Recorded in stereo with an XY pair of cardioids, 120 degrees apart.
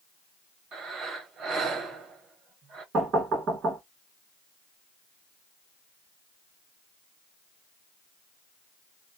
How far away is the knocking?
About 1.4 m.